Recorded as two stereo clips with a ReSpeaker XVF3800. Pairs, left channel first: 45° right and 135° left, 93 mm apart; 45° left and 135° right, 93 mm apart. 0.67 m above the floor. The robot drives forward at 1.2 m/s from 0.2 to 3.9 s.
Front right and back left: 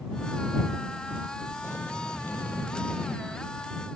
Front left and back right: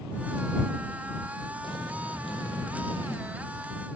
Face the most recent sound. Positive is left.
turn(degrees=60)